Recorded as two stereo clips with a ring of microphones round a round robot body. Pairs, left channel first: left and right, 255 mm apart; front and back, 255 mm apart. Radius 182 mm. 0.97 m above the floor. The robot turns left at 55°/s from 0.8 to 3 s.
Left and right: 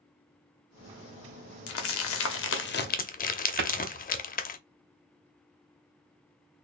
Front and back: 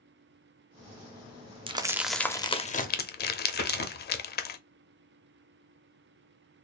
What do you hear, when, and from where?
1.7 s crumpling: 115° left, 0.7 m; by 4.6 s 40° left, 0.7 m
3.6 s a cupboard door: 55° right, 0.8 m